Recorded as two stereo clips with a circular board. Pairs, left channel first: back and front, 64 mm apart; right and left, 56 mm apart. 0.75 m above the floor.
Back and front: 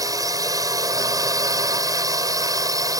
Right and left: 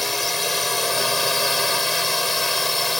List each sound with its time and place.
0.0 s a drone: straight ahead